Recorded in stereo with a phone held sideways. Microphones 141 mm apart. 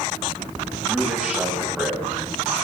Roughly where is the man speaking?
Centre.